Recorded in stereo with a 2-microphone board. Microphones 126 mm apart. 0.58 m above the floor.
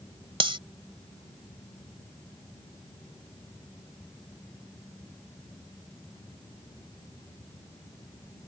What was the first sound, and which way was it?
Cutlery clinking, 40° right (ahead or behind).